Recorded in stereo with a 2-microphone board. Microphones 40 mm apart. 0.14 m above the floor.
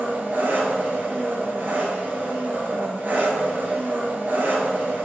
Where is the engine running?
55° right (ahead or behind), 0.9 m.